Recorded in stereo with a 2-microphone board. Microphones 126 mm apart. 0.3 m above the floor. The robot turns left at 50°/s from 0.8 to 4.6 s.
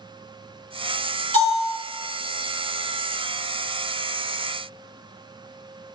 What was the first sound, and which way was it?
A bell, 70° left (ahead or behind).